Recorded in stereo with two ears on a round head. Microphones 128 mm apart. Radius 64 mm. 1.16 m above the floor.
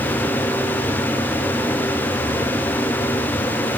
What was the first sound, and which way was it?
Only background noise.